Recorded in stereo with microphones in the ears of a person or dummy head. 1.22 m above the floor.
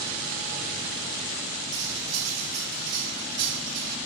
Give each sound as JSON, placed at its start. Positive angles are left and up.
{"t": 1.7, "sound": "cutlery clinking", "side_deg": -85, "distance_m": 6.5}